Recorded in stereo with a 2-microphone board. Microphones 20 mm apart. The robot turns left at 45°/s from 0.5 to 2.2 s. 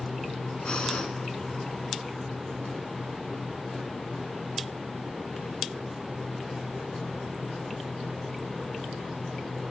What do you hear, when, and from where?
0.7 s breathing: 55° left (ahead or behind), 0.7 m; by 1.1 s 45° left (ahead or behind), 0.7 m